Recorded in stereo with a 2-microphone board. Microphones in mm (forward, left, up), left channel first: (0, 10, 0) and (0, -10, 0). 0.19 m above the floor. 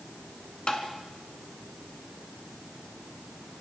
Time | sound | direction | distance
0.7 | tapping | 50° left (ahead or behind) | 2.5 m